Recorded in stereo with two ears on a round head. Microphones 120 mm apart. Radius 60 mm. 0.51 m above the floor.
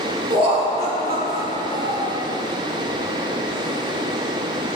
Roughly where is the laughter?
Right.